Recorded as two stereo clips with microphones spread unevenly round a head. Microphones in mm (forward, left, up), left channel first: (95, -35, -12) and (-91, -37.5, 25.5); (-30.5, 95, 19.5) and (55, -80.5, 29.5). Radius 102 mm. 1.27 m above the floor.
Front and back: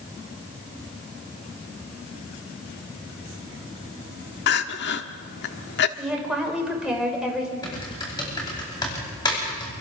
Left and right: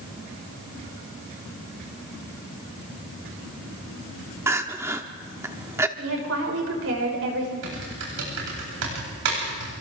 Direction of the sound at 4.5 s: 5° left.